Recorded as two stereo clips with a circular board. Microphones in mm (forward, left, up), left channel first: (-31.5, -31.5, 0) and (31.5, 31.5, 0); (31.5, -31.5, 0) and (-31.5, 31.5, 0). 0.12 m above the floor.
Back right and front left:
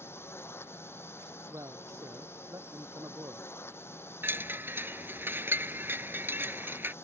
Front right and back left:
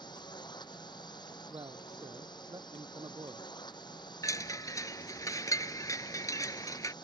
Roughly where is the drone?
Right.